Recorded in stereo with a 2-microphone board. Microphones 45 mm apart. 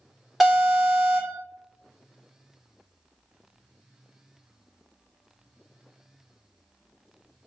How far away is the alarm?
About 1.5 m.